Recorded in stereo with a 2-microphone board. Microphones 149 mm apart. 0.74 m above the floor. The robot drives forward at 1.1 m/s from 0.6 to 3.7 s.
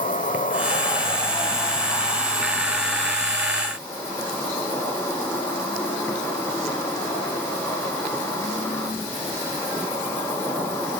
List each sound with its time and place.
0.0 s an insect: 65° left (ahead or behind), 1.1 m; by 11.0 s 15° left (ahead or behind), 4 m